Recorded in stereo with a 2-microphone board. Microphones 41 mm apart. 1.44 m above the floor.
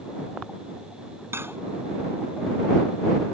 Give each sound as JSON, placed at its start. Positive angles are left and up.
{"t": 1.3, "sound": "cutlery clinking", "side_deg": -85}